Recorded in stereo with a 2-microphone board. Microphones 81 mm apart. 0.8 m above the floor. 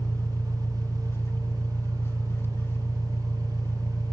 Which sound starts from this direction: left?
An engine running, at 0.0 s.